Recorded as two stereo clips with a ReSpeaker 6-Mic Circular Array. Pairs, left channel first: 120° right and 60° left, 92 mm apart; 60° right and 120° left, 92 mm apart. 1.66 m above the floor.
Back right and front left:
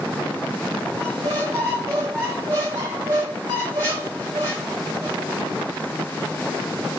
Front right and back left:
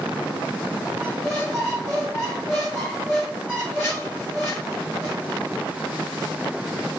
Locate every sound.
1.0 s a squeak: 5° left, 2.5 m